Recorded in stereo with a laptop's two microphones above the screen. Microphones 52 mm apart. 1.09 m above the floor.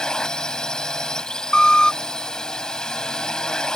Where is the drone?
15° left (ahead or behind).